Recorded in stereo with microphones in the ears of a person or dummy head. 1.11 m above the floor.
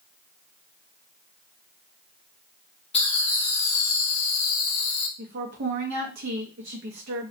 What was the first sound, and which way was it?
Laughter, 25° left (ahead or behind).